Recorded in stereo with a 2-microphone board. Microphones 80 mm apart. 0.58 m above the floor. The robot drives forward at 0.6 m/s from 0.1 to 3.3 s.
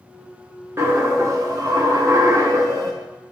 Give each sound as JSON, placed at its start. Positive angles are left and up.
{"t": 0.8, "sound": "a dropped coin", "side_deg": -35, "distance_m": 0.9}